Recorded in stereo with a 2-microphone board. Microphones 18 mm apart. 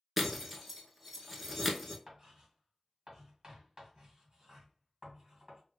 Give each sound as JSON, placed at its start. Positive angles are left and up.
{"t": 0.2, "sound": "breaking glass", "side_deg": -10, "distance_m": 0.8}
{"t": 2.1, "sound": "writing", "side_deg": -45, "distance_m": 1.9}